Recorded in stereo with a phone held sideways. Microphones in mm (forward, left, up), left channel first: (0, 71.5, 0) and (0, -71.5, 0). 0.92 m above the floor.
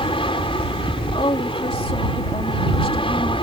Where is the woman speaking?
40° left (ahead or behind).